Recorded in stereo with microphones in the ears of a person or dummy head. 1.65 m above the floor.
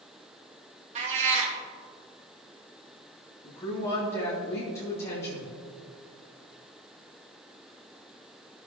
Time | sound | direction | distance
0.9 | a cat meowing | 35° right (ahead or behind) | 1.3 m
3.4 | a woman speaking | 15° left (ahead or behind) | 2.5 m